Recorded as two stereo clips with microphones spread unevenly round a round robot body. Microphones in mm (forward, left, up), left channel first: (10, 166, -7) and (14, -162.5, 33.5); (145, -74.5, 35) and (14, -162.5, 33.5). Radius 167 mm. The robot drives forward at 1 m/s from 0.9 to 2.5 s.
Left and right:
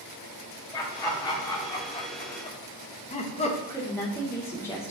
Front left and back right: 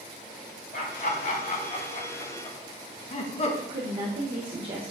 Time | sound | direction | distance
0.7 | laughter | 15° left | 2.5 m
3.7 | a woman speaking | 165° left | 1.2 m